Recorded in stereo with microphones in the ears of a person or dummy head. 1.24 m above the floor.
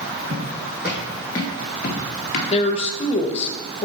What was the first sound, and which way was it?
Footsteps, 25° right (ahead or behind).